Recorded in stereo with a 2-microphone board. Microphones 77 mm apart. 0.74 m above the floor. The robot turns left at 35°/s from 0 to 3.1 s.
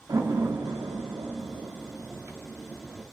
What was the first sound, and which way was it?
A door slam, 60° right (ahead or behind).